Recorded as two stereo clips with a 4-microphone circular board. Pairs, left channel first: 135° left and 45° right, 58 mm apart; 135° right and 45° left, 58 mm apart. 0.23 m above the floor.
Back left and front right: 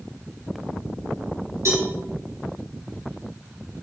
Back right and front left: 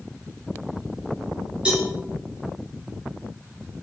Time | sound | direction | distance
1.6 | a cowbell | 25° right | 3.5 m